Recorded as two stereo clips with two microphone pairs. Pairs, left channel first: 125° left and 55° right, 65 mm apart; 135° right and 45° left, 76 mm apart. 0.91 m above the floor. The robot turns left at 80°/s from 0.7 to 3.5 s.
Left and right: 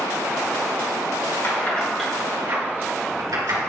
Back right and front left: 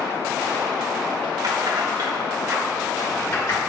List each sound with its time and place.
1.4 s keys jangling: 75° left, 1.7 m; by 3.6 s 90° right, 1.7 m